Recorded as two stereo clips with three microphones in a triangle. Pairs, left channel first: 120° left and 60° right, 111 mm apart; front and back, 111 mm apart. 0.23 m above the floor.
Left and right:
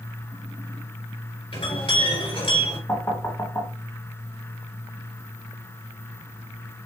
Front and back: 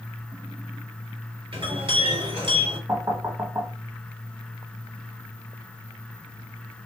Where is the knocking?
145° left, 1.2 m.